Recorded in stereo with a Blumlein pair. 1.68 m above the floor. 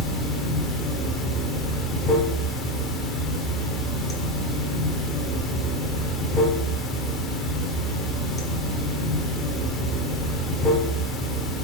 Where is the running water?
15° left, 0.9 m.